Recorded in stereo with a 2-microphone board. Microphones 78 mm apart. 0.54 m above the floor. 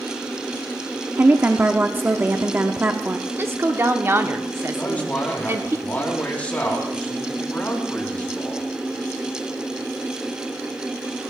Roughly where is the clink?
No clink in this recording.